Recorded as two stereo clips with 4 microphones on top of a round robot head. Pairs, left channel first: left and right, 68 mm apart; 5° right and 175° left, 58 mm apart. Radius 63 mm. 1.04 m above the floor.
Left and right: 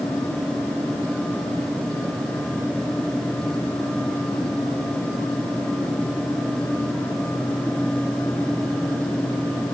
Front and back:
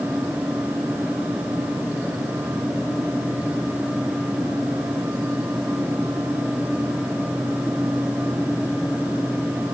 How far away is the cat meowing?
I don't hear a cat meowing.